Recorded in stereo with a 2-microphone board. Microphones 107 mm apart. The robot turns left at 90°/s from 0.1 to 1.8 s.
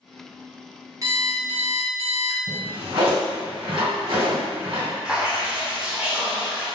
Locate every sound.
1.0 s an alarm clock: 30° right, 0.8 m; by 2.4 s 105° right, 0.8 m
2.5 s a drawer: 55° right (ahead or behind), 1.7 m
5.0 s dripping: 10° right (ahead or behind), 0.8 m